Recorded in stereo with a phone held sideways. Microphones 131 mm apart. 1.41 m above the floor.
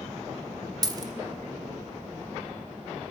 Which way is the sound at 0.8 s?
30° right (ahead or behind).